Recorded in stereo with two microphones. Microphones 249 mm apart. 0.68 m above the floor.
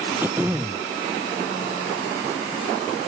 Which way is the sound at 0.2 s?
10° right (ahead or behind).